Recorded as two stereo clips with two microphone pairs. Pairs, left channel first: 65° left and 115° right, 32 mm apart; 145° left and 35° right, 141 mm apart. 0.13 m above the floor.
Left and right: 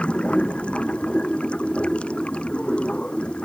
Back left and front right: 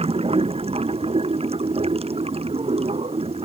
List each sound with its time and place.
0.0 s running water: 10° left